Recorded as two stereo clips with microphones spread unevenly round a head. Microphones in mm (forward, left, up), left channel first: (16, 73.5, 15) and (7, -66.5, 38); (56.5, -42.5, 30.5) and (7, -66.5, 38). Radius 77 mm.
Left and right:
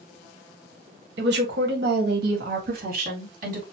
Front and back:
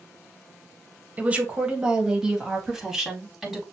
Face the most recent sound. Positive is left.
turn(degrees=-65)